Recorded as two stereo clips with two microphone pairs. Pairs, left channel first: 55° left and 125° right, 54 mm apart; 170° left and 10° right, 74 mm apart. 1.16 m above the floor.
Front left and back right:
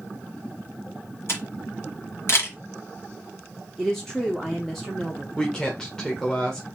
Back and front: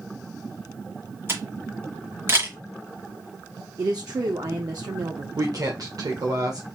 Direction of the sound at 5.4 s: 20° right.